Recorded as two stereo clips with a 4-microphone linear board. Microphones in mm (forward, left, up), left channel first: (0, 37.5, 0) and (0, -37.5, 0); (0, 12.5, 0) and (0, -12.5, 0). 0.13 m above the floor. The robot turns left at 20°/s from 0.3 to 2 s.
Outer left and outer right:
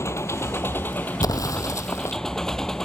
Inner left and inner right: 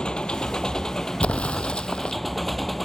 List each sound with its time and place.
0.0 s an engine running: 40° left; by 2.9 s 5° left
1.2 s an explosion: 55° left (ahead or behind); by 2.2 s 40° left (ahead or behind)